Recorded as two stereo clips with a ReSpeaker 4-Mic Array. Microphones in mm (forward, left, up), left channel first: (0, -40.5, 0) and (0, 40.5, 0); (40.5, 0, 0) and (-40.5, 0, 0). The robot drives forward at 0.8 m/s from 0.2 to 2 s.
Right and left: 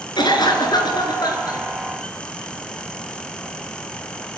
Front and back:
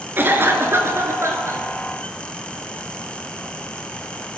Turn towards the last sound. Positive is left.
turn(degrees=-130)